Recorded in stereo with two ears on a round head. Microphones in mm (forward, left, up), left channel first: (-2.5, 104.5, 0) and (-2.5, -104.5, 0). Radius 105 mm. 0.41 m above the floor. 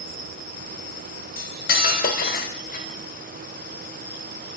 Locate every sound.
1.4 s cutlery clinking: 45° left (ahead or behind), 0.9 m